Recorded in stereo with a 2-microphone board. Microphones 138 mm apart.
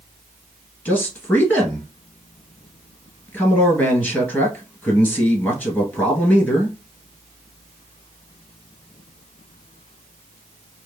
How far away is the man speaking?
About 1.5 m.